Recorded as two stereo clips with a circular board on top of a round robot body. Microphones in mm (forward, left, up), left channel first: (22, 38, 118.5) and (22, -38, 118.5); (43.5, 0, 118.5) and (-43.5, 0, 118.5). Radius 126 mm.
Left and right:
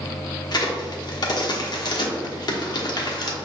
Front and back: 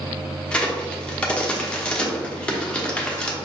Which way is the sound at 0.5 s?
80° left.